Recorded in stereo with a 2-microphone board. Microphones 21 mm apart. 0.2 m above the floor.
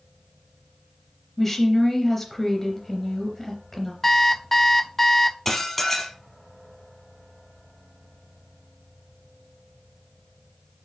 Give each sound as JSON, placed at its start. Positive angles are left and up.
{"t": 1.4, "sound": "a woman speaking", "side_deg": 15, "distance_m": 3.5}
{"t": 4.0, "sound": "an alarm clock", "side_deg": 20, "distance_m": 0.6}
{"t": 5.5, "sound": "dishes clattering", "side_deg": 10, "distance_m": 3.5}